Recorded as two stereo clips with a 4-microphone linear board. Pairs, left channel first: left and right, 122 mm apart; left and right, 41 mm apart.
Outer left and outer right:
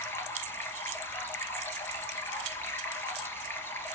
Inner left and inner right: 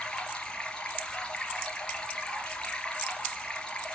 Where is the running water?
20° left (ahead or behind), 3 m.